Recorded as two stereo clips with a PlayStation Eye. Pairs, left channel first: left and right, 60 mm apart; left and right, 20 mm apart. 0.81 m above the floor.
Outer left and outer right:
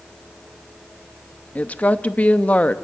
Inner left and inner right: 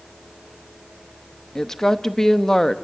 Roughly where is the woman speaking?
Left.